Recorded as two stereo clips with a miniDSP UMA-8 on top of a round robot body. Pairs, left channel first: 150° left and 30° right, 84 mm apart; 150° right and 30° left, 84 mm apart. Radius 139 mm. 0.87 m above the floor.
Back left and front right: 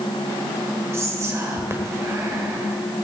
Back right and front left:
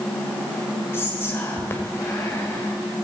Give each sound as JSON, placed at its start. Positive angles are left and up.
{"t": 0.9, "sound": "whispering", "azimuth_deg": -85, "distance_m": 1.7}